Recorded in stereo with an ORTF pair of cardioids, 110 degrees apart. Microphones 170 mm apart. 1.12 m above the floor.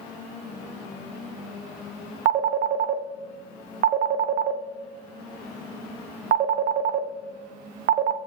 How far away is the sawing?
No sawing in this recording.